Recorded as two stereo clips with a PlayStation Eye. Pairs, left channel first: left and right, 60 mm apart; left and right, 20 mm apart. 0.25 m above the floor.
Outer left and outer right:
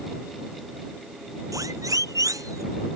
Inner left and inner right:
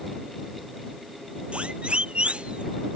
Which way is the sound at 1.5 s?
70° right (ahead or behind).